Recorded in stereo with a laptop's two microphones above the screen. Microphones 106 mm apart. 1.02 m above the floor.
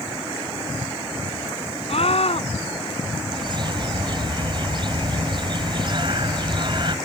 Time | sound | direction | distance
1.9 | a scream | 60° left (ahead or behind) | ?
3.3 | a bird | 45° right (ahead or behind) | ?